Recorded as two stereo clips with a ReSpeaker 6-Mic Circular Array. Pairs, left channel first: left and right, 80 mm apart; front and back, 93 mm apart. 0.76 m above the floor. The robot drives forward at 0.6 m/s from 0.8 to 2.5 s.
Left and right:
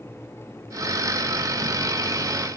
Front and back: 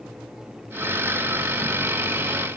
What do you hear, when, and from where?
Only background noise.